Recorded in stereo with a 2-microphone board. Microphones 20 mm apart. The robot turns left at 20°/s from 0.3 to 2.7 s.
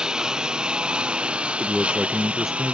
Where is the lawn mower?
40° right (ahead or behind); by 2.8 s 85° right.